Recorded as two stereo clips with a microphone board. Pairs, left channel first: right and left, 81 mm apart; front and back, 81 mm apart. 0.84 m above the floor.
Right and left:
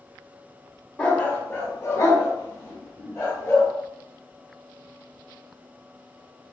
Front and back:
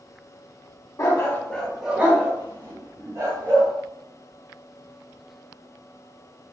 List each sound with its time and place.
1.0 s a dog barking: 20° right, 0.6 m; by 3.7 s 145° right, 1.3 m